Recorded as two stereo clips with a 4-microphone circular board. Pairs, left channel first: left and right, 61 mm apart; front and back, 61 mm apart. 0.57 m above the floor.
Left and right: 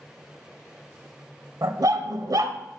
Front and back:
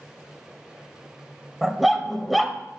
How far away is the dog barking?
About 0.7 m.